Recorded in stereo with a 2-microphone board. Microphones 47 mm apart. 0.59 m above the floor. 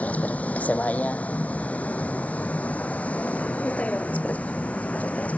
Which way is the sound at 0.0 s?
35° left (ahead or behind).